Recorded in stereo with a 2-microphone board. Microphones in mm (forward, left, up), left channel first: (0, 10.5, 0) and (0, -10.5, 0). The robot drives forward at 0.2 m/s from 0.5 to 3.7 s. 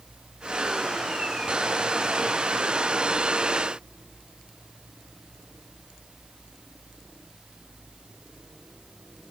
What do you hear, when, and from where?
Only background noise.